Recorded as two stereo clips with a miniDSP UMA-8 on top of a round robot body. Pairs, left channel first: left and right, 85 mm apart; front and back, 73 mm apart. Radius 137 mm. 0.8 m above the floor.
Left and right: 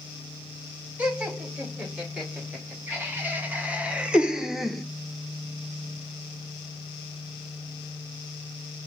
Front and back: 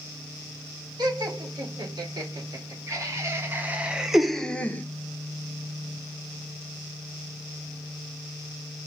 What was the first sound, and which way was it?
Laughter, 160° right.